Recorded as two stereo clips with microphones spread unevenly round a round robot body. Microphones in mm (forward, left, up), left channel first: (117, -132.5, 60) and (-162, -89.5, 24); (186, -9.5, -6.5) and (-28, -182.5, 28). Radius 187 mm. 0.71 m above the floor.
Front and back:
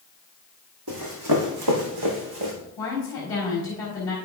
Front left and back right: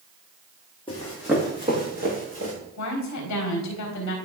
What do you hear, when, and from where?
0.9 s running footsteps: 115° left, 1.8 m; by 2.5 s 170° left, 2.5 m
2.8 s a woman speaking: 75° left, 3.5 m